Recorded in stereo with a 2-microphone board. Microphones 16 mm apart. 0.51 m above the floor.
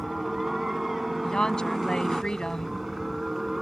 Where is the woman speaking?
55° left (ahead or behind).